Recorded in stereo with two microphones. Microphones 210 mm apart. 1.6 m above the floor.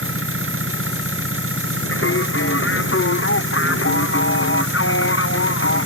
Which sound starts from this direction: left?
Singing, at 1.9 s.